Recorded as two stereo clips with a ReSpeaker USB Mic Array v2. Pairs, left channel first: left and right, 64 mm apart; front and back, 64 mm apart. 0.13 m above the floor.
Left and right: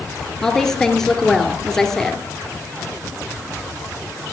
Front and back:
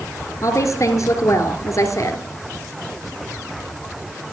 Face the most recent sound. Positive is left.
turn(degrees=10)